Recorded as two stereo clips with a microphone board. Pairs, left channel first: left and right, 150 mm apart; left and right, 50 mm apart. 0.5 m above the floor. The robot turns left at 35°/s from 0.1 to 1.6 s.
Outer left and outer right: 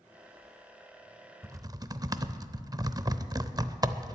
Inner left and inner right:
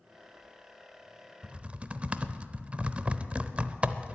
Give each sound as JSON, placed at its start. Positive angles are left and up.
{"t": 1.4, "sound": "typing on a keyboard", "side_deg": -20, "distance_m": 0.6}